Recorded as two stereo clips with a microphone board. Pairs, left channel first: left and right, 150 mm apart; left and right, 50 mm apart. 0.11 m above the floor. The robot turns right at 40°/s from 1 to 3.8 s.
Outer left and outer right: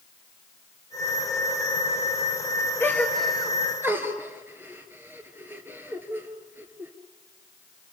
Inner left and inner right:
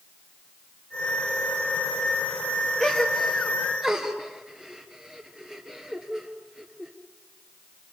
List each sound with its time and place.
2.8 s a gasp: 15° left (ahead or behind), 2.5 m; by 6.9 s 15° right (ahead or behind), 2.5 m